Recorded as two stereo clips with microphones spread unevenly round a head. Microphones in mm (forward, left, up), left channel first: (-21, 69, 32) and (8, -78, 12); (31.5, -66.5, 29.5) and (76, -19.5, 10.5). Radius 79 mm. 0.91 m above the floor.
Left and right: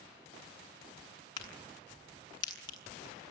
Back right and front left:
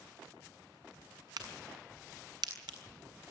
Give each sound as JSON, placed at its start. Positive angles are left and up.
{"t": 1.4, "sound": "a crack", "azimuth_deg": 35, "distance_m": 6.5}